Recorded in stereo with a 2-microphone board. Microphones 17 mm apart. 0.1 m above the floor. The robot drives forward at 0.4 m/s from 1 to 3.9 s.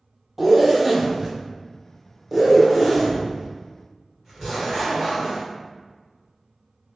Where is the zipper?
10° right (ahead or behind), 0.9 m; by 5.4 s 5° right (ahead or behind), 2.0 m.